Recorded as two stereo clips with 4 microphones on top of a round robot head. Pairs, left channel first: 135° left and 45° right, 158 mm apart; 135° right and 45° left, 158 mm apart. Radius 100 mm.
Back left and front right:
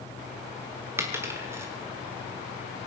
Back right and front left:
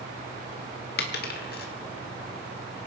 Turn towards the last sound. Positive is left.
turn(degrees=-115)